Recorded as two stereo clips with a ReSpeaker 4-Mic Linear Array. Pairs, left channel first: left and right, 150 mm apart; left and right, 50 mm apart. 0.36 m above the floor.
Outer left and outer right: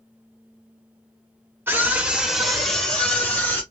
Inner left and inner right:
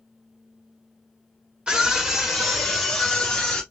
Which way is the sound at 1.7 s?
15° right (ahead or behind).